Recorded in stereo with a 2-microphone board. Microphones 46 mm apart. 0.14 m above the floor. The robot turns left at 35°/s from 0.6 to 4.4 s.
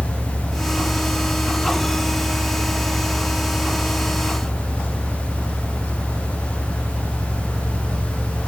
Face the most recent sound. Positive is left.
turn(degrees=-50)